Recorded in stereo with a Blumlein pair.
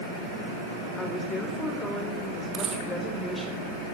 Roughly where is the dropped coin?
Ahead right.